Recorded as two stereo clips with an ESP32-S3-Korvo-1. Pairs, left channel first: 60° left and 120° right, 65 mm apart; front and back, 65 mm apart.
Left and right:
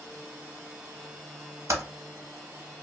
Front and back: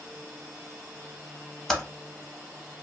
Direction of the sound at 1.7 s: 85° right.